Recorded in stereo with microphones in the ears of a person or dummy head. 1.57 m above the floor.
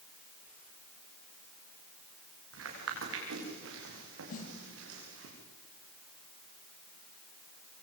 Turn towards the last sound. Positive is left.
turn(degrees=45)  # may be behind; listen again after turning